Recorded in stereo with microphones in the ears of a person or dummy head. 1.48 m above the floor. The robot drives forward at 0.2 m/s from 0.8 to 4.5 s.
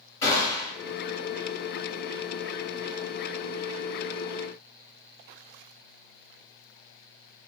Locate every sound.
0.2 s a gunshot: 20° left (ahead or behind), 1.5 m